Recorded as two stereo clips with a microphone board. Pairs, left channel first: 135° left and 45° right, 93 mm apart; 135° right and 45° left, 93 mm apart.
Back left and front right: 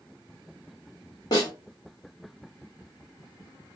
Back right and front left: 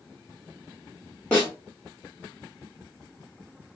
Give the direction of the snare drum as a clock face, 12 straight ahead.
7 o'clock.